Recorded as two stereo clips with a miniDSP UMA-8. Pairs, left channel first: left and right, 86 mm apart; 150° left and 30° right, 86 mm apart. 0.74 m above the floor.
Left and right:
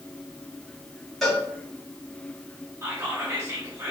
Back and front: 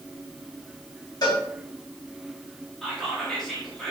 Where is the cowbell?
175° left, 1.4 m.